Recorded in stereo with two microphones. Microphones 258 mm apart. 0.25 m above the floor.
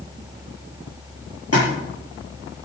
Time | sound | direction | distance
1.5 | a splash | 65° left (ahead or behind) | 6 m